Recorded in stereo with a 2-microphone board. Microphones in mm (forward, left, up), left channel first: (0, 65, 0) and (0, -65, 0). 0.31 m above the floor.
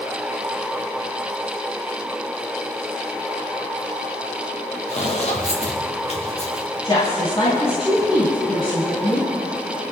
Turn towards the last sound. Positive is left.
turn(degrees=50)  # may be behind; listen again after turning